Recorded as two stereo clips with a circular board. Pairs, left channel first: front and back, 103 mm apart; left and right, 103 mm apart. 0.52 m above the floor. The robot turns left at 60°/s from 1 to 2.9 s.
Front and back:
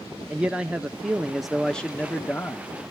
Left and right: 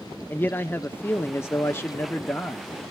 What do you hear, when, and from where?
0.3 s a man speaking: 120° left, 0.7 m; by 2.7 s 20° left, 0.7 m